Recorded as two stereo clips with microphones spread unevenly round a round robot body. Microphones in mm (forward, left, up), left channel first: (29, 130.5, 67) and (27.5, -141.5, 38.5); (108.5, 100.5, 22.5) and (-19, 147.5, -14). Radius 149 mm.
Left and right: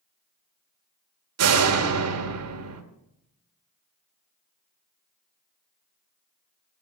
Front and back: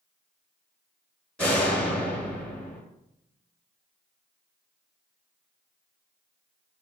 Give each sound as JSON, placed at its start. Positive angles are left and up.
{"t": 1.4, "sound": "a door slam", "azimuth_deg": -110, "distance_m": 2.0}